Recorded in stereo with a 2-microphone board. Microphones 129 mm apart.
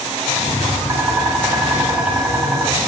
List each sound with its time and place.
0.3 s tapping: 15° right (ahead or behind), 2.0 m